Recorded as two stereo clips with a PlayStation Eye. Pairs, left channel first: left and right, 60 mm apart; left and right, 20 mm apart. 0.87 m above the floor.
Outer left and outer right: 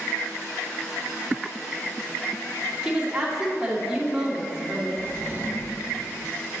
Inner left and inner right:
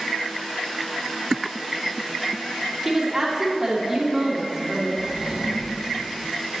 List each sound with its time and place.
2.8 s a woman speaking: 10° right (ahead or behind), 2.5 m
5.0 s a drawer: 30° right (ahead or behind), 2.0 m